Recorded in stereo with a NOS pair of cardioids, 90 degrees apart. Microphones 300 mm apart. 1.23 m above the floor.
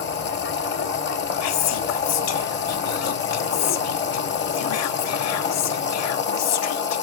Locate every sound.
0.0 s a machine running: 35° left, 0.8 m
1.4 s whispering: 60° left, 0.6 m